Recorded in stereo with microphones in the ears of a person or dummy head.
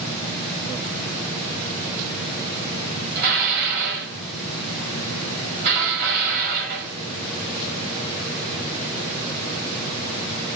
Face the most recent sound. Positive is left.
turn(degrees=-60)  # may be behind; listen again after turning